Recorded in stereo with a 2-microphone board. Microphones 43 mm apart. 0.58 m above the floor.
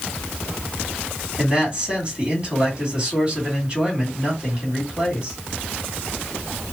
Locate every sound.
1.4 s a man speaking: 20° right (ahead or behind), 2.0 m